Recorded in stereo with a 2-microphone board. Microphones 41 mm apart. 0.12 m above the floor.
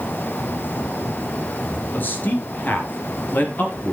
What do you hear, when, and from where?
1.9 s a man speaking: 50° left (ahead or behind), 2.5 m